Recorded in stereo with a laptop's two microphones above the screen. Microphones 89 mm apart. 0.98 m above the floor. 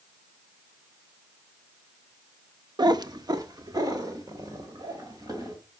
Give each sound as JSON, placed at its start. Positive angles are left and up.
{"t": 2.8, "sound": "a cat meowing", "side_deg": -55, "distance_m": 0.5}